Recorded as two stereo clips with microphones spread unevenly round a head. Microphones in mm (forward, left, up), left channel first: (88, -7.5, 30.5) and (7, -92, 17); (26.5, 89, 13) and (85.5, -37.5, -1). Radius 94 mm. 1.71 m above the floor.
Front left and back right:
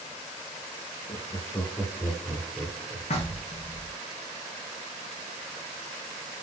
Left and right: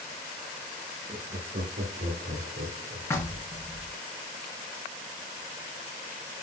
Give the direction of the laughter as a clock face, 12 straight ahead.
1 o'clock.